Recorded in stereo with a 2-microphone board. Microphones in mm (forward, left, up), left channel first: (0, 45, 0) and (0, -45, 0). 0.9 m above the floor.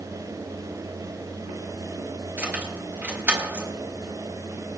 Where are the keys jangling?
20° right (ahead or behind), 4 m.